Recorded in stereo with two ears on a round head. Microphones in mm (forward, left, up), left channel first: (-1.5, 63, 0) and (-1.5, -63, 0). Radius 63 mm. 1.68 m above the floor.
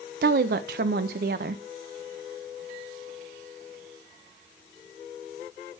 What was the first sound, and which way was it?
A woman speaking, 70° right (ahead or behind).